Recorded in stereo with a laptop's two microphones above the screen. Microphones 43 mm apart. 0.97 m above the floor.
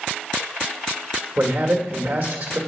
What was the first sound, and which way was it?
A man speaking, 55° right (ahead or behind).